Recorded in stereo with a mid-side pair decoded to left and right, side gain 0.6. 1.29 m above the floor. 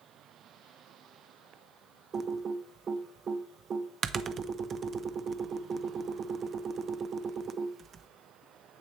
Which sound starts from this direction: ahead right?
Typing on a keyboard, at 2.1 s.